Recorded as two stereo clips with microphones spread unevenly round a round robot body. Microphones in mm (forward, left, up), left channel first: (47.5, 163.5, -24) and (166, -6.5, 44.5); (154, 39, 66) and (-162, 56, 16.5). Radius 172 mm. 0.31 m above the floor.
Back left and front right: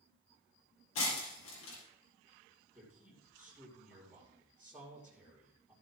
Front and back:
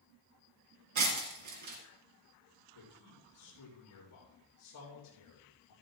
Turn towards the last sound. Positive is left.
turn(degrees=35)